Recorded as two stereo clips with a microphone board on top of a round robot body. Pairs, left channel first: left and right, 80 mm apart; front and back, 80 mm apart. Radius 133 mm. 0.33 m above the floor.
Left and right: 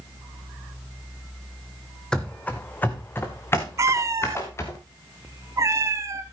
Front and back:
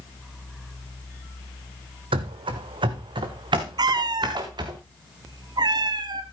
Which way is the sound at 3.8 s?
145° right.